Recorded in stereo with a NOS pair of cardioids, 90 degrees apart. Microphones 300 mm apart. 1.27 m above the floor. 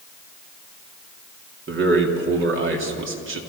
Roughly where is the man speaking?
Ahead right.